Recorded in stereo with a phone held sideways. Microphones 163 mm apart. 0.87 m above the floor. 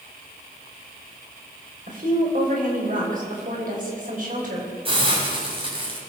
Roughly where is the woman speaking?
Right.